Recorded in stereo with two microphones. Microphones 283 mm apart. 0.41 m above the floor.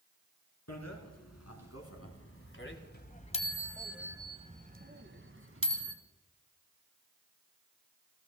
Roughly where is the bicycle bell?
Left.